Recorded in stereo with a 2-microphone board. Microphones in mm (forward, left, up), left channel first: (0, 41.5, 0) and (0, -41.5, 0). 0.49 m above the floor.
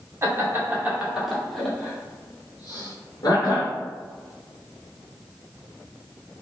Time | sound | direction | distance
0.2 | laughter | 30° right (ahead or behind) | 1.1 m